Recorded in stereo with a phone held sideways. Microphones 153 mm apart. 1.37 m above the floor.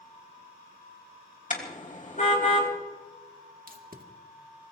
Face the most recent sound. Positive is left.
turn(degrees=-65)  # may be behind; listen again after turning